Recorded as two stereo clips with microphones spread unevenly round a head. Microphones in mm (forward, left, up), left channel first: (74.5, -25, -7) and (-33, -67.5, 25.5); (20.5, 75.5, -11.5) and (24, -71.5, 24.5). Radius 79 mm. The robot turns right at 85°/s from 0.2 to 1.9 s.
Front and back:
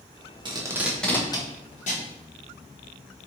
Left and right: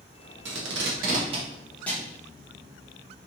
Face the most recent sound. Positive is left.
turn(degrees=15)